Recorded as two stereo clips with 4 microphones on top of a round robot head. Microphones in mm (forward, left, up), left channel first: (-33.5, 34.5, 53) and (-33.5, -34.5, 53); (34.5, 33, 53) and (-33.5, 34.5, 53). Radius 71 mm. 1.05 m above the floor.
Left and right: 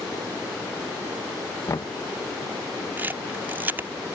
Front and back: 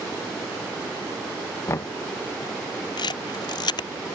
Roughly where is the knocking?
Ahead left.